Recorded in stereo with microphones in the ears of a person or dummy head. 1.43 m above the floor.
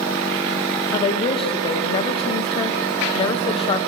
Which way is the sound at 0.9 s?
30° left (ahead or behind).